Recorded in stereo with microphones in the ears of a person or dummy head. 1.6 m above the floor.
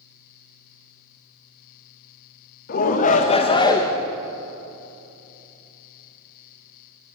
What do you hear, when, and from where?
2.7 s a shout: 50° left (ahead or behind), 1.7 m; by 3.9 s 15° left (ahead or behind), 1.5 m